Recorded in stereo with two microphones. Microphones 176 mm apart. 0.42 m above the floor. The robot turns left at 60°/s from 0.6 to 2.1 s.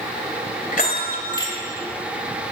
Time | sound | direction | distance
0.7 | a bell | 65° left | 2.5 m